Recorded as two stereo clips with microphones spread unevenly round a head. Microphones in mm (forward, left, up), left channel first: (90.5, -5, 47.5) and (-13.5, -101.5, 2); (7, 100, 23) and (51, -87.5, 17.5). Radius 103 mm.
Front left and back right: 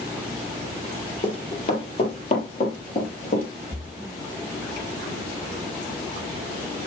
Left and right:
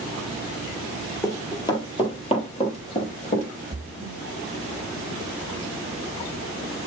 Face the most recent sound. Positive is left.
turn(degrees=5)